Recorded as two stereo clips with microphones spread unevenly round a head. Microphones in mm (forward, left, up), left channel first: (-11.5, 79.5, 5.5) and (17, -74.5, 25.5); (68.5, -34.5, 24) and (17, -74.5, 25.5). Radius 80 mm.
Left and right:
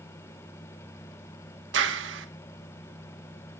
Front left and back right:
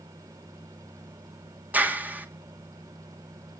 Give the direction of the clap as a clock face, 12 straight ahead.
3 o'clock.